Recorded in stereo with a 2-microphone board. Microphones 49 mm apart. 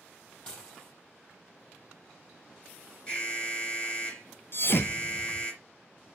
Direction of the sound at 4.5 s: 50° left (ahead or behind).